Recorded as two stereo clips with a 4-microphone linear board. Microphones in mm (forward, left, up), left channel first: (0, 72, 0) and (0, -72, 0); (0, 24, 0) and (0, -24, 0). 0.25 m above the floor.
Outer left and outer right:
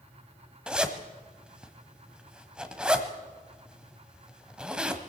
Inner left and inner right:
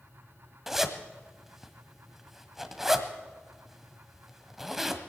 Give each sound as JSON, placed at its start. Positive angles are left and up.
{"t": 0.7, "sound": "a zipper", "side_deg": -5, "distance_m": 1.3}